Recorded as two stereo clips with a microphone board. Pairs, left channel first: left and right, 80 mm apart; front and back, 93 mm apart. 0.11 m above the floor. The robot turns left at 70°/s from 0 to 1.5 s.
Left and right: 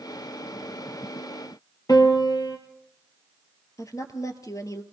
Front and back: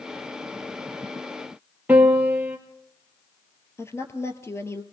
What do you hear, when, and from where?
1.9 s a piano: 110° left, 2.5 m
3.8 s a woman speaking: 55° left, 2 m